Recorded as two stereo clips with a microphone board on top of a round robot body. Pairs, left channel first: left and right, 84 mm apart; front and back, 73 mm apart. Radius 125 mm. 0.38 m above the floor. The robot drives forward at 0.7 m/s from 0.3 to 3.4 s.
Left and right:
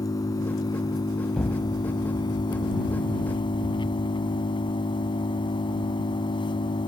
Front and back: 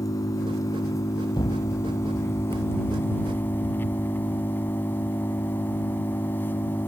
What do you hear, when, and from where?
0.0 s an engine running: 40° left; by 6.9 s 65° left
1.3 s an explosion: 10° left; by 4.1 s 15° left